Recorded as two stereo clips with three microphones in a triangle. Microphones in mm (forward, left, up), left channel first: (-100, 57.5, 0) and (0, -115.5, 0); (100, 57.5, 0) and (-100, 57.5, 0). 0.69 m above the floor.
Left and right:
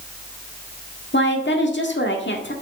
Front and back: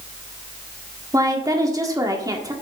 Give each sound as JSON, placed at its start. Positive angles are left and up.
{"t": 1.1, "sound": "a woman speaking", "azimuth_deg": 110, "distance_m": 1.6}